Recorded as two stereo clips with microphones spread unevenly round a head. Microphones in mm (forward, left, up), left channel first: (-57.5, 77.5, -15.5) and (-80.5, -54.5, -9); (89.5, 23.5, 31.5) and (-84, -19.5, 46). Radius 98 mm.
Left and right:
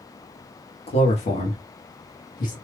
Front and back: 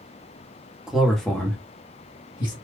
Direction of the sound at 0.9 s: 105° left.